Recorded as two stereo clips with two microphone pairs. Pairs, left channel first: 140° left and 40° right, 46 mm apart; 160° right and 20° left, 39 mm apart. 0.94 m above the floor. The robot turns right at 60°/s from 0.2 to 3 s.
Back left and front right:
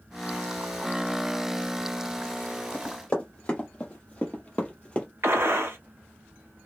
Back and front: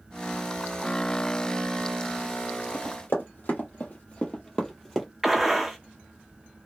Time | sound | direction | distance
2.7 | running footsteps | 170° right | 1.7 m
5.2 | a gunshot | 60° right | 0.6 m